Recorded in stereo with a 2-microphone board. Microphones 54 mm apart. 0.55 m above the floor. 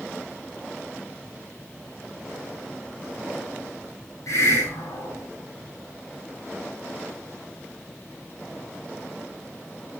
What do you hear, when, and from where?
4.3 s a hiss: 70° left (ahead or behind), 8.5 m